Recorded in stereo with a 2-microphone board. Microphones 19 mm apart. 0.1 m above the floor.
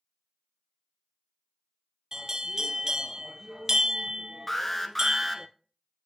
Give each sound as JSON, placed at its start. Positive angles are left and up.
{"t": 2.1, "sound": "a bell", "side_deg": -30, "distance_m": 0.5}
{"t": 4.5, "sound": "an alarm", "side_deg": 10, "distance_m": 0.9}